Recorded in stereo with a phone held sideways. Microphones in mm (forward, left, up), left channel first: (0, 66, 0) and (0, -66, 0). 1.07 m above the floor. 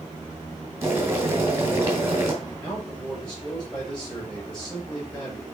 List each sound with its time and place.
0.8 s boiling: 20° right (ahead or behind), 2.5 m
2.4 s a man speaking: 10° left (ahead or behind), 5.5 m